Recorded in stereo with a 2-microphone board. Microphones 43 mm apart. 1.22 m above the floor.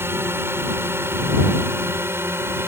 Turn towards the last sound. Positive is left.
turn(degrees=-70)  # may be behind; listen again after turning